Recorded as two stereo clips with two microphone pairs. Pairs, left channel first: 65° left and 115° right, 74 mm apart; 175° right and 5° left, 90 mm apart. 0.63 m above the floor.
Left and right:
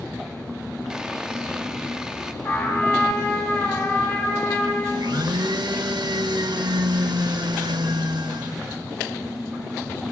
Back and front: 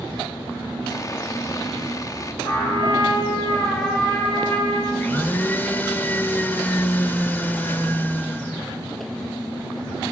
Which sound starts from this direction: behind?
Sawing, at 0.9 s.